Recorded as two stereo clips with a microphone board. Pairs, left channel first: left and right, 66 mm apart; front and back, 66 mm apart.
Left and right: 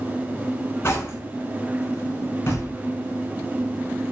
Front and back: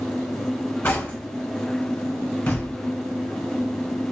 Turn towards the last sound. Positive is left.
turn(degrees=60)